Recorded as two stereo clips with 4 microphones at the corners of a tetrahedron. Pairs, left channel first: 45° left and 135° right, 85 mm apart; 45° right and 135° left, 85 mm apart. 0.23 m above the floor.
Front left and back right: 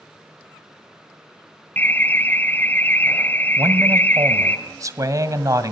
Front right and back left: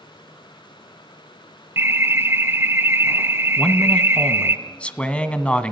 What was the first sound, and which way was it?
An alarm, 95° left.